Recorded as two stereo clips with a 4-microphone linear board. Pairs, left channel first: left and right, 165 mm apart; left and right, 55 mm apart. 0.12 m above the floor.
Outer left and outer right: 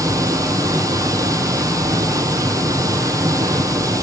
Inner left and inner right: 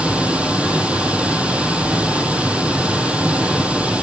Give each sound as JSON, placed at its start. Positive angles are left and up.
{"t": 0.0, "sound": "running water", "side_deg": -20, "distance_m": 1.2}